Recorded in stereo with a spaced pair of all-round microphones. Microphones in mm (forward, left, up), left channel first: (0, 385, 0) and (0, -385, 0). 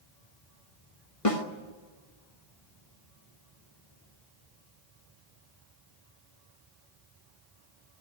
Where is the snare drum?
45° left (ahead or behind), 1.7 m.